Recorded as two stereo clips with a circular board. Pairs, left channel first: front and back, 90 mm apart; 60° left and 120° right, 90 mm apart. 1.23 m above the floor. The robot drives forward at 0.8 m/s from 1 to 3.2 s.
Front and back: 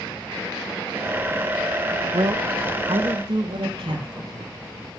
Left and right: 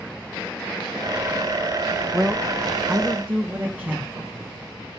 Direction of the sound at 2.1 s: 155° left.